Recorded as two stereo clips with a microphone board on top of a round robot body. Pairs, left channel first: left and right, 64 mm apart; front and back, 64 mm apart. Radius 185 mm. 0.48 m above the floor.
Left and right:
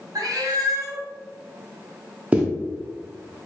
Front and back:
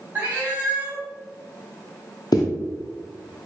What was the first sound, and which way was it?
A cat meowing, 115° right.